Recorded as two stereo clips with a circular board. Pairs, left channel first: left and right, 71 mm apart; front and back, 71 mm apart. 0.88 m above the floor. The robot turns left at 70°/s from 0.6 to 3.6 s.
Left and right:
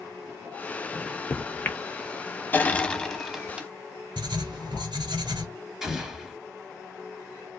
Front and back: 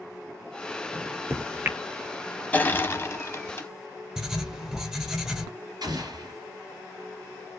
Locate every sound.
0.9 s a microwave: 170° right, 0.8 m; by 1.8 s 130° left, 0.8 m
2.5 s crushing: 50° left, 0.8 m; by 3.7 s 25° right, 0.8 m
4.2 s writing: 95° right, 1.1 m
5.8 s an explosion: 170° right, 2.5 m